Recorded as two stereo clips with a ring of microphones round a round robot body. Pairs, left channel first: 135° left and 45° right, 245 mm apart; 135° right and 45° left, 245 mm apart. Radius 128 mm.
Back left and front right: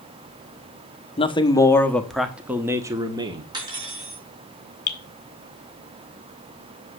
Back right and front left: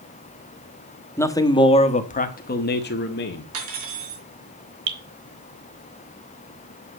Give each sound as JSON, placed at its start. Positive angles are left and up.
{"t": 1.2, "sound": "a man speaking", "azimuth_deg": 160, "distance_m": 1.1}
{"t": 3.5, "sound": "cutlery clinking", "azimuth_deg": 30, "distance_m": 4.5}
{"t": 4.9, "sound": "dripping", "azimuth_deg": 80, "distance_m": 2.0}